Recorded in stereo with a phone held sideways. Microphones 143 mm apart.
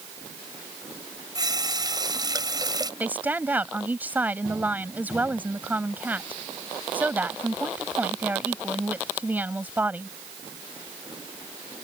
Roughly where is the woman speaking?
Centre.